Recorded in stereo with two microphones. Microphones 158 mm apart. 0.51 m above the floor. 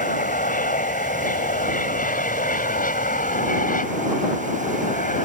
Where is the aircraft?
60° left (ahead or behind); by 5.3 s 55° left (ahead or behind).